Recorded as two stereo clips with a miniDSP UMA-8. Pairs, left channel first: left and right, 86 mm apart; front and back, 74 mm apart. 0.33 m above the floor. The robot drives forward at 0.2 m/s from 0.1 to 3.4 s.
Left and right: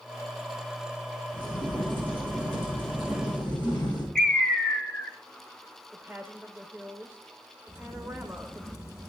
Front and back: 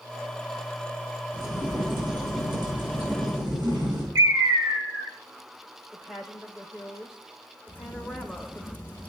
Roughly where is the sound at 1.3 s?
Behind.